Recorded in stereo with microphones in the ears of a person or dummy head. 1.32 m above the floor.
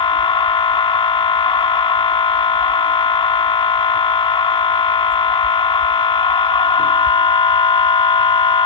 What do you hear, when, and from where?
0.0 s a machine running: 20° left (ahead or behind)